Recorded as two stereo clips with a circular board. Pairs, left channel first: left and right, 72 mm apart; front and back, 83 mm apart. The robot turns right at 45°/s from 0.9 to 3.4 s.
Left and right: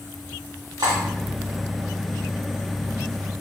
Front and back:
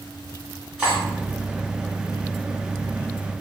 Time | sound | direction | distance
0.8 | cutlery clinking | 100° right | 1.2 m